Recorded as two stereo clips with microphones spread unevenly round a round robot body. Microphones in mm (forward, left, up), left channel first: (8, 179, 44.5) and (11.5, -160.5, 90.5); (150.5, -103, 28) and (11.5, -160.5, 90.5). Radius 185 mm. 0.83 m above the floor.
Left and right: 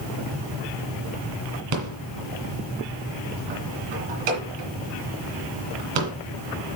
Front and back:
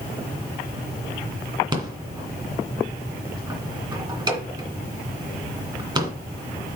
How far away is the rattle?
About 2 m.